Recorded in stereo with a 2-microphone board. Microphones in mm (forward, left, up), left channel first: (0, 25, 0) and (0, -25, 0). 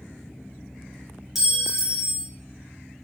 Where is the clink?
5° right (ahead or behind), 0.7 m.